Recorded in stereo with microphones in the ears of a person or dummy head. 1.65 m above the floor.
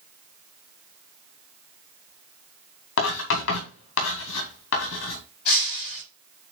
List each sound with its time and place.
3.0 s writing: 85° left, 2.5 m
5.5 s breaking glass: 55° left (ahead or behind), 5.5 m